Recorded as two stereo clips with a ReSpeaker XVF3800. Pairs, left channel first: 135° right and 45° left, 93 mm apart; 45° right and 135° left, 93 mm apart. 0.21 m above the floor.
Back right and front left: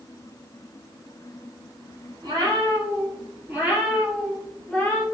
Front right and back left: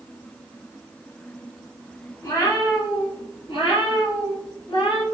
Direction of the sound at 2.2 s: 5° left.